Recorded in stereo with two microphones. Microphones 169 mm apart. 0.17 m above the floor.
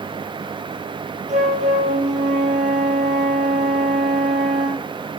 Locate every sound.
1.3 s a flute: 45° right (ahead or behind), 2.5 m